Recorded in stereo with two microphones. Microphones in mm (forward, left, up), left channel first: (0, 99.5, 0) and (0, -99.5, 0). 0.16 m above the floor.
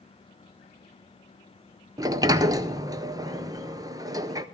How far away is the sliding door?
About 0.5 m.